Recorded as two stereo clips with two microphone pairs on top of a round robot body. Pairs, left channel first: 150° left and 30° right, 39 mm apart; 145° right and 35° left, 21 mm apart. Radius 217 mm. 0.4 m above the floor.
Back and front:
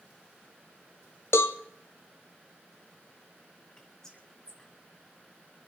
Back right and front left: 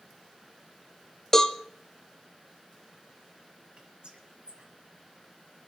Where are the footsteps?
No footsteps in this recording.